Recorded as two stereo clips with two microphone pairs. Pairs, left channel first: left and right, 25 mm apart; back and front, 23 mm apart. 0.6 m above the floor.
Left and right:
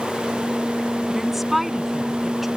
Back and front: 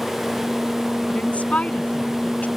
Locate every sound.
1.1 s a woman speaking: 175° right; by 2.5 s 170° right